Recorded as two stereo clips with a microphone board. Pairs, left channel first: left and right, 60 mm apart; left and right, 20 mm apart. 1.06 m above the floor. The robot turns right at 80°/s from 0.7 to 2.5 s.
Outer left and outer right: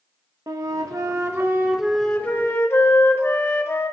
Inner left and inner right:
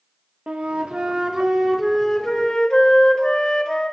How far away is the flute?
About 1.3 m.